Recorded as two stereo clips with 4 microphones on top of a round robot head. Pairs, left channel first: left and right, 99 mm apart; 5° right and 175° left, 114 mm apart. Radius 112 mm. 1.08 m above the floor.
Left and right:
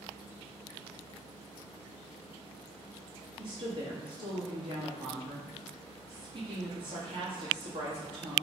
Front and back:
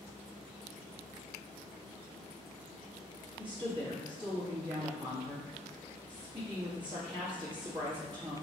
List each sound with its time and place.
3.4 s a woman speaking: 135° right, 1.7 m